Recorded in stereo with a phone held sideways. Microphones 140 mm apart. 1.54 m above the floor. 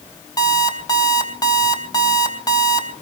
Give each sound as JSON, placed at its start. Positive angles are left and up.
{"t": 0.4, "sound": "an alarm clock", "side_deg": 25, "distance_m": 3.0}